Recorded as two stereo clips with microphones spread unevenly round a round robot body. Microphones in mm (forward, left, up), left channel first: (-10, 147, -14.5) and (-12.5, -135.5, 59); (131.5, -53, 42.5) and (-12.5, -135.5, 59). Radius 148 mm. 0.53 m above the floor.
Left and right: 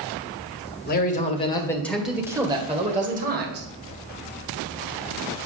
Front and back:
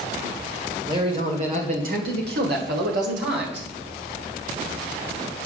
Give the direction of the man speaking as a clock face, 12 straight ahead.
7 o'clock.